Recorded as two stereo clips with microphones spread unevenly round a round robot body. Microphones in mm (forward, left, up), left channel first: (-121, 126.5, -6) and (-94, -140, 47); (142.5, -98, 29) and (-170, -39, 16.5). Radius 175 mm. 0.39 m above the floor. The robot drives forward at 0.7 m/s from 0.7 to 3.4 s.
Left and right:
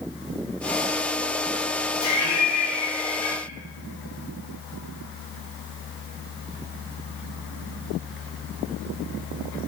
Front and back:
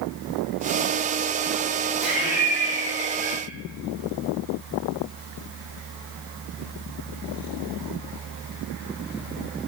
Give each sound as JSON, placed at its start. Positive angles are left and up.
{"t": 2.0, "sound": "laughter", "azimuth_deg": 80, "distance_m": 3.0}